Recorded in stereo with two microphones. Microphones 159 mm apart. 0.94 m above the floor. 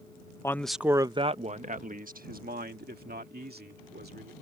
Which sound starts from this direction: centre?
A man speaking, at 0.4 s.